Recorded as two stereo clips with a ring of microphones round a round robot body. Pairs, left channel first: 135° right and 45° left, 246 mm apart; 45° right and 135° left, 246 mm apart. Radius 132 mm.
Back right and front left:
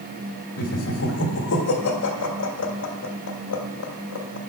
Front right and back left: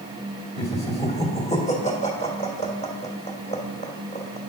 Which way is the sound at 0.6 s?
105° right.